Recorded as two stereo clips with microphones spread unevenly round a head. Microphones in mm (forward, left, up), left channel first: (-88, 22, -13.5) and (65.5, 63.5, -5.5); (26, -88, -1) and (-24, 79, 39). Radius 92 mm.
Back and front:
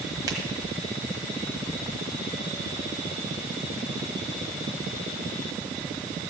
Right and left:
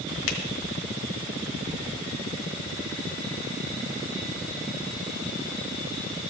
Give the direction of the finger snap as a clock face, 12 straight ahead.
2 o'clock.